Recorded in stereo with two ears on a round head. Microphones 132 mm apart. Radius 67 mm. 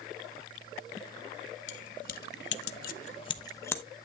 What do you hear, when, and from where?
1.7 s keys jangling: 50° left (ahead or behind), 1.1 m; by 3.8 s 15° left (ahead or behind), 1.0 m